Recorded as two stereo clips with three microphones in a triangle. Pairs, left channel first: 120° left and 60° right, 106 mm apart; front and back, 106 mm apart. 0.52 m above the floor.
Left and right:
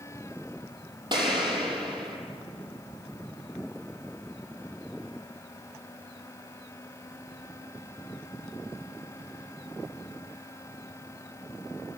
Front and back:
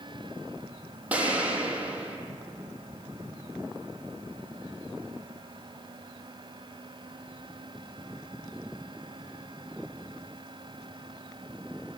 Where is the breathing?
I don't hear breathing.